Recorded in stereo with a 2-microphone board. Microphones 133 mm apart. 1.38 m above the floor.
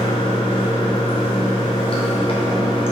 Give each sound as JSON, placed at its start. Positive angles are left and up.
{"t": 0.0, "sound": "running water", "side_deg": 45, "distance_m": 3.5}